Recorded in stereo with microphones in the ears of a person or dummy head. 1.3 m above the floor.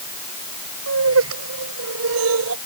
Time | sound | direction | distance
0.9 | laughter | 80° right | ?